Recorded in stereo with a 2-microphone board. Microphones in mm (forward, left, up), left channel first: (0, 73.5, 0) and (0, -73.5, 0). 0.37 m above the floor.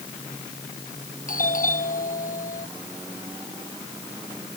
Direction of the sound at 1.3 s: 65° left (ahead or behind).